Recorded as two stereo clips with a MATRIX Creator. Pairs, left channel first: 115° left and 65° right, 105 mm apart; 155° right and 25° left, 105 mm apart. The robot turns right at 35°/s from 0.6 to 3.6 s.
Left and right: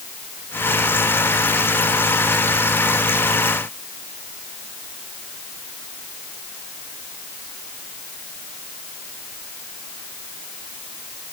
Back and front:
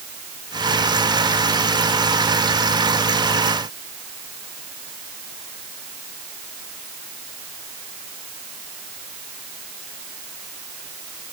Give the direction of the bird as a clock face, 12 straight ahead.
I don't hear a bird.